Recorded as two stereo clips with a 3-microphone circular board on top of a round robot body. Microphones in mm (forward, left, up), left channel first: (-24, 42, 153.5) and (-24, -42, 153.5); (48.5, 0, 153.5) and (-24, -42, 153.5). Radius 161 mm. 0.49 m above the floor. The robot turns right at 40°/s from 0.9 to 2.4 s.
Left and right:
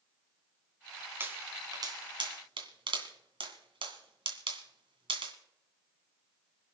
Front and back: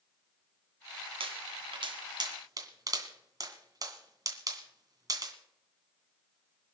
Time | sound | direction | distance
1.2 | a pop | 155° right | 2.5 m